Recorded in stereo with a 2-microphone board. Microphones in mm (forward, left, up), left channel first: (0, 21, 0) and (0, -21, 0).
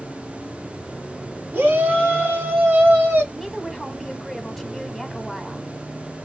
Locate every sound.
1.5 s a shout: 45° right (ahead or behind), 2 m; by 3.2 s 50° right (ahead or behind), 2.5 m
3.3 s a woman speaking: 5° right (ahead or behind), 1.2 m